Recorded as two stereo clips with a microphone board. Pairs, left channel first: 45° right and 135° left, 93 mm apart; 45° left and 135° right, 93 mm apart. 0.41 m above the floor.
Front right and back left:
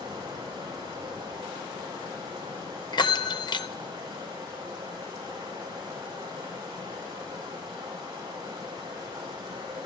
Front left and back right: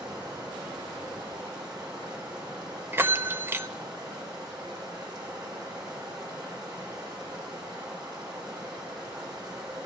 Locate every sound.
0.0 s running water: straight behind, 8 m
2.9 s a bell: 75° right, 0.5 m